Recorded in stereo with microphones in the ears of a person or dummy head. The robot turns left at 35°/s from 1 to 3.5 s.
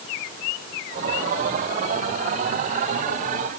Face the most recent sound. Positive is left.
No sound to turn to.